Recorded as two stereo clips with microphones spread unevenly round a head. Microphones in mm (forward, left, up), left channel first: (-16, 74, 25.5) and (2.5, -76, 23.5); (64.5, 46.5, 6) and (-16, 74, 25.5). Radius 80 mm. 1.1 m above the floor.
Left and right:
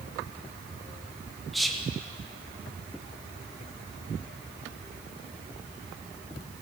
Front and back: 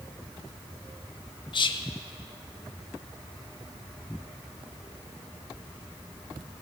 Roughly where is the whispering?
Ahead.